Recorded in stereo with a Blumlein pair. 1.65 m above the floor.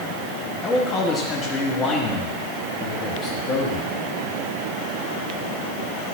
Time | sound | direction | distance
0.6 | a man speaking | 25° left | 1.3 m